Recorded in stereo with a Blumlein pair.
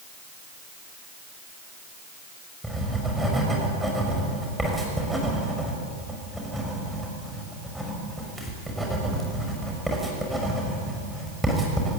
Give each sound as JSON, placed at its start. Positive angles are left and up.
{"t": 2.6, "sound": "writing", "azimuth_deg": -5, "distance_m": 6.0}